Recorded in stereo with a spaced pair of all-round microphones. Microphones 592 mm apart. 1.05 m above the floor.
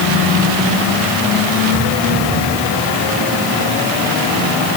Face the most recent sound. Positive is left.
No sound to turn to.